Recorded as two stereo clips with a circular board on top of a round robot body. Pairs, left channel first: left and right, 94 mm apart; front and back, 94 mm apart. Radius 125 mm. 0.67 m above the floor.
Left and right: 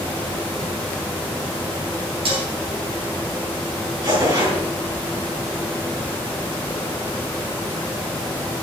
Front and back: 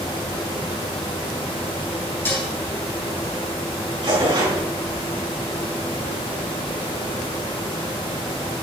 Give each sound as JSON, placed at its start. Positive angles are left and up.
{"t": 2.2, "sound": "dishes clattering", "azimuth_deg": -70, "distance_m": 3.0}
{"t": 4.0, "sound": "tearing paper", "azimuth_deg": -140, "distance_m": 4.5}